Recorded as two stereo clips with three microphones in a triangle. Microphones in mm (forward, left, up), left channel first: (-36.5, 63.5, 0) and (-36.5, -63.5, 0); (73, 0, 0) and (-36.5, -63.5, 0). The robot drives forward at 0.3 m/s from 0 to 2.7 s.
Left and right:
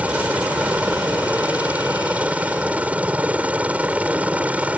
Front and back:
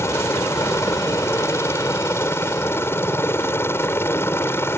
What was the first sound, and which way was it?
A helicopter, 20° right.